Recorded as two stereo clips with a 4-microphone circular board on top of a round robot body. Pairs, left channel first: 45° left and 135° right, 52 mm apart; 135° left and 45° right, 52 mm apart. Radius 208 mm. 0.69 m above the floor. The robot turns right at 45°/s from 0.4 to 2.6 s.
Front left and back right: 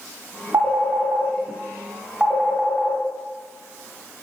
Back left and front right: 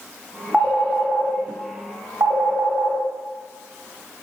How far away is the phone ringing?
About 0.9 m.